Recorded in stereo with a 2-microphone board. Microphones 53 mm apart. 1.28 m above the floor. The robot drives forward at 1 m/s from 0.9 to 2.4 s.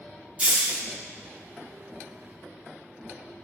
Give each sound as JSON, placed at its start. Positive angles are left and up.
{"t": 0.4, "sound": "a hiss", "side_deg": -25, "distance_m": 0.8}